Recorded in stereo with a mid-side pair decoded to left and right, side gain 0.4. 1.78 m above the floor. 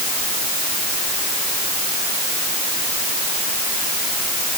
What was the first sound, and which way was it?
Only background noise.